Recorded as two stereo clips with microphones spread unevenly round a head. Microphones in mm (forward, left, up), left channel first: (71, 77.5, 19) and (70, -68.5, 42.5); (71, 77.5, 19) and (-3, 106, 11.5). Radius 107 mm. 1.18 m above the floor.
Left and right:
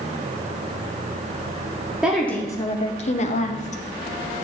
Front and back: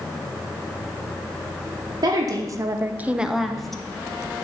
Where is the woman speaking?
Straight behind, 1.0 m; by 3.8 s 65° left, 1.4 m.